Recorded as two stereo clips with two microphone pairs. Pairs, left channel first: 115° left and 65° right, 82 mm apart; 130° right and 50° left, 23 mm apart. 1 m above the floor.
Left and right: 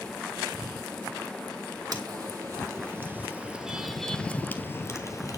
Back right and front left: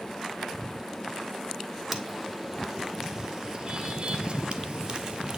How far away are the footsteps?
About 2.5 m.